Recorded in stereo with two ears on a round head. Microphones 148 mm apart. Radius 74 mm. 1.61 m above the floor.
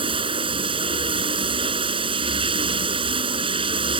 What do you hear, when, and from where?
0.0 s running water: 30° right (ahead or behind)